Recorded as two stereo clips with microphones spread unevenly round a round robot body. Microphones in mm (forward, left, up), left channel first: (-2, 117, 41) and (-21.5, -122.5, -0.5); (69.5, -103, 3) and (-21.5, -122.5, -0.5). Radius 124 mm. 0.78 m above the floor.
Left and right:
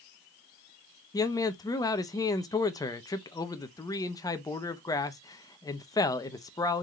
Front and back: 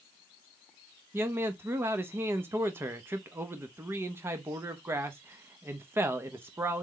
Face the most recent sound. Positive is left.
turn(degrees=165)